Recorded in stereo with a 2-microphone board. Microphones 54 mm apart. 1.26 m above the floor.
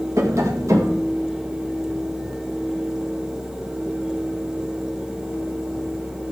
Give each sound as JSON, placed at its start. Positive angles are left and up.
{"t": 0.2, "sound": "tapping", "side_deg": -65, "distance_m": 1.3}